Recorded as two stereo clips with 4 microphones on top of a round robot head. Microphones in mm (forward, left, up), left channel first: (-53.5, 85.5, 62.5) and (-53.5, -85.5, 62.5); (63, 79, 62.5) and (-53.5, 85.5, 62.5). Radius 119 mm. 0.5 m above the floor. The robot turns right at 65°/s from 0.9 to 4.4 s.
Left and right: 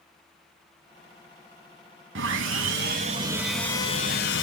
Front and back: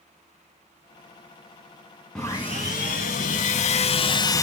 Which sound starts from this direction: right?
Sawing, at 2.1 s.